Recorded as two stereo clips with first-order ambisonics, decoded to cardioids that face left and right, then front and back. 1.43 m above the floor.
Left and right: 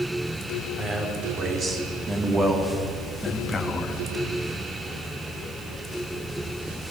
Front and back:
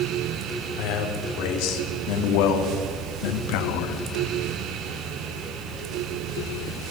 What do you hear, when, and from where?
0.8 s a man speaking: 25° right, 4.5 m; by 4.0 s 20° left, 2 m